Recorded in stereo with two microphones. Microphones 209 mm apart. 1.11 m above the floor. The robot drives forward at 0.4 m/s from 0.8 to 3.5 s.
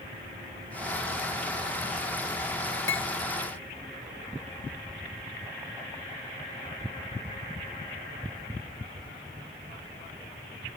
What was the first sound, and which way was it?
Cutlery clinking, 65° left (ahead or behind).